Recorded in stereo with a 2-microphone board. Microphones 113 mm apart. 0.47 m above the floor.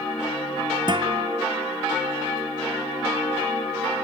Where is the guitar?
45° right (ahead or behind).